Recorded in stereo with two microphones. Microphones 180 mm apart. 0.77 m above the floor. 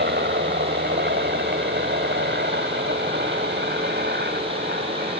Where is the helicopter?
70° right (ahead or behind); by 5.2 s 65° right (ahead or behind).